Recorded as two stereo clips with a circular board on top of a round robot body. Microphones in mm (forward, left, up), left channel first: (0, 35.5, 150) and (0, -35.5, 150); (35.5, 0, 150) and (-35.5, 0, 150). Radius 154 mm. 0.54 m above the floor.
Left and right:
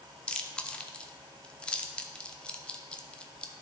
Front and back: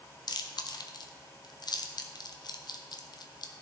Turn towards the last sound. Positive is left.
turn(degrees=15)